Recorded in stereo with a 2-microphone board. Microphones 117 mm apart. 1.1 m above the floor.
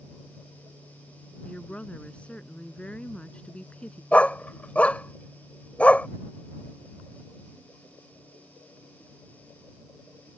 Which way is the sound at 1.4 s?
10° left (ahead or behind).